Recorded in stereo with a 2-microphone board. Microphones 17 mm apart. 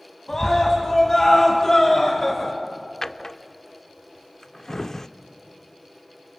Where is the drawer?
30° left (ahead or behind), 0.6 m.